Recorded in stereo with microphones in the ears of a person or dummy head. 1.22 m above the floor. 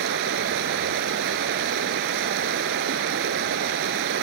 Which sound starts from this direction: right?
Running water, at 0.0 s.